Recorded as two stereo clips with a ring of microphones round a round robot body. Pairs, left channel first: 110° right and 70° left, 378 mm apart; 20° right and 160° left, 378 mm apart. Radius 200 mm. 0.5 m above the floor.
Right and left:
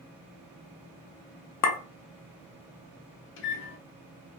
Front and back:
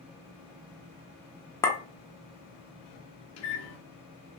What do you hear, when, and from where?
1.6 s a clink: 100° right, 0.6 m
3.4 s a microwave: 65° right, 0.8 m